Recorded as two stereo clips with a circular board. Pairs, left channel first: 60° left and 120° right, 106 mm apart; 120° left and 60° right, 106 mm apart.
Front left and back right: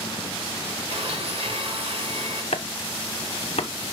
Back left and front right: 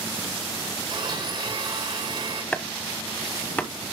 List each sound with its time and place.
0.9 s a blender: 100° right, 4 m
2.5 s chopping: 45° left, 1.0 m